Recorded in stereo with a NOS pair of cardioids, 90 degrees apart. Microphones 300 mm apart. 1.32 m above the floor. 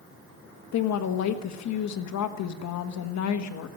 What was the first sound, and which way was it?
A woman speaking, 65° left.